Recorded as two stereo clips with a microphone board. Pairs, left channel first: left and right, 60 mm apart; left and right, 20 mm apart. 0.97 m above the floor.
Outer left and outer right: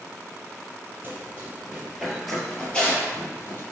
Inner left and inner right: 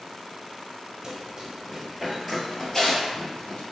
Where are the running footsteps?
30° right (ahead or behind), 1.1 m; by 3.6 s 40° left (ahead or behind), 1.2 m.